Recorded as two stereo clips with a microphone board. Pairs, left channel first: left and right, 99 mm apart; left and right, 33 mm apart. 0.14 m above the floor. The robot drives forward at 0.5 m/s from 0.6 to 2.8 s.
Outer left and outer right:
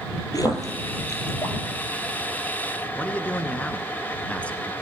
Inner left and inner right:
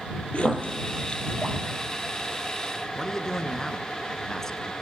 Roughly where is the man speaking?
Centre.